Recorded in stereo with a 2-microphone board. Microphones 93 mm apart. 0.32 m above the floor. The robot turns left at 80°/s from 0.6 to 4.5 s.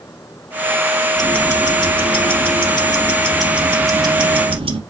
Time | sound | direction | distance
1.2 | ticking | straight behind | 1.1 m